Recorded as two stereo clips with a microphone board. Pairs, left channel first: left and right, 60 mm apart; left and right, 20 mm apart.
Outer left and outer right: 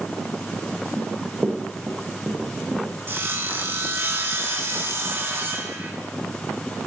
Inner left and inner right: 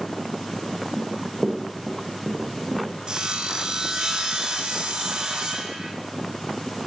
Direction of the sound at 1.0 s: 40° right (ahead or behind).